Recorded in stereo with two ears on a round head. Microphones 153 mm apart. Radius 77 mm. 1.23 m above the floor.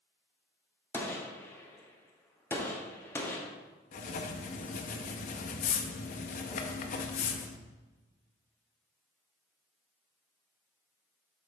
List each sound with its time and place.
0.9 s a gunshot: 15° left (ahead or behind), 1.0 m
3.9 s writing: 45° left (ahead or behind), 0.7 m